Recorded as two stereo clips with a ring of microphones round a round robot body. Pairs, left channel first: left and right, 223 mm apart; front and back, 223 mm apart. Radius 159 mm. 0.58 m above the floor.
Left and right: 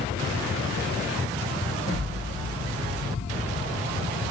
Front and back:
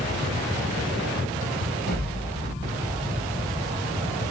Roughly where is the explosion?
Ahead.